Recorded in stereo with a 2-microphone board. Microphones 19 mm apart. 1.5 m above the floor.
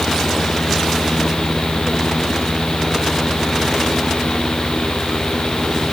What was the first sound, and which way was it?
Only background noise.